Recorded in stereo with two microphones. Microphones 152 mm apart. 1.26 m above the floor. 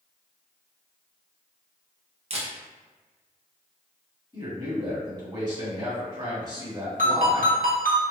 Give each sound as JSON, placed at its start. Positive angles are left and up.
{"t": 2.3, "sound": "a camera shutter", "side_deg": -45, "distance_m": 0.6}
{"t": 4.3, "sound": "a man speaking", "side_deg": -30, "distance_m": 1.2}
{"t": 7.0, "sound": "a ringtone", "side_deg": -70, "distance_m": 0.8}